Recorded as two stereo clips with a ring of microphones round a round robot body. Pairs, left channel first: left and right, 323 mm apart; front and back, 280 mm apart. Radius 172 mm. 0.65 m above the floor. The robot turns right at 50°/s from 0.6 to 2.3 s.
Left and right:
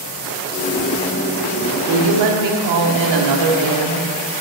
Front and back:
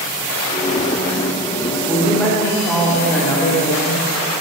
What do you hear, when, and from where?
1.9 s a woman speaking: 105° right, 1.4 m; by 4.1 s 85° right, 1.4 m